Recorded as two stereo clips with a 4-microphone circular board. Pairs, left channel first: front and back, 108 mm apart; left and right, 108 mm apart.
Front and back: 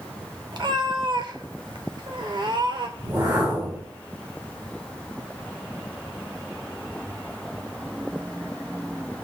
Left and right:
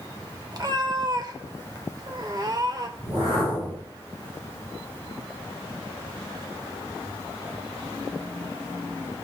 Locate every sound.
0.5 s a cat meowing: 140° right, 0.8 m
3.0 s a whoosh: 125° right, 6 m